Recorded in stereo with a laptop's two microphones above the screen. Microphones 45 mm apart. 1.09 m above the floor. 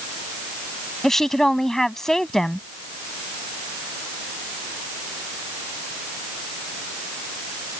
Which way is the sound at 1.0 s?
5° left (ahead or behind).